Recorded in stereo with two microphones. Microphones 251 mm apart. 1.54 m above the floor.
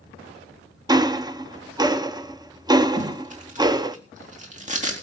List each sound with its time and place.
0.9 s ticking: 15° right (ahead or behind), 0.7 m
3.0 s tape being pulled: 30° right (ahead or behind), 3.5 m